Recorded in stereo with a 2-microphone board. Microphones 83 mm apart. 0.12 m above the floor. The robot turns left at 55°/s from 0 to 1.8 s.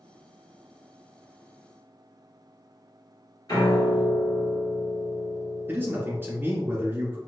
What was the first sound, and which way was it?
A piano, 50° left (ahead or behind).